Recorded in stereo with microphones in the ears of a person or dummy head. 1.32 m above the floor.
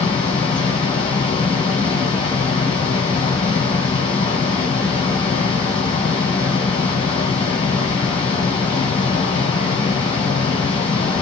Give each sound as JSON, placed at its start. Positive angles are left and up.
{"t": 0.0, "sound": "a fan", "side_deg": 25, "distance_m": 1.9}